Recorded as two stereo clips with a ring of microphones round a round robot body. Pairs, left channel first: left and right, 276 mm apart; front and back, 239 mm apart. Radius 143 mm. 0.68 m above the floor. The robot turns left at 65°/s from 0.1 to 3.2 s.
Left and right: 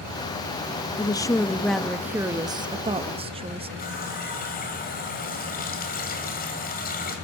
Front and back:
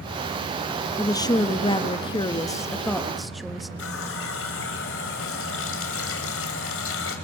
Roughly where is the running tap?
Ahead left.